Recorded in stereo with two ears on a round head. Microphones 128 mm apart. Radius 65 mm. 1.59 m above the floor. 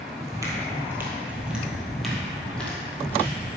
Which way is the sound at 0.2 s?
25° right (ahead or behind).